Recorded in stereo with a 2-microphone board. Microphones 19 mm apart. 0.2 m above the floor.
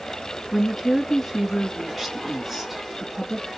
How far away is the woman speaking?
About 2 m.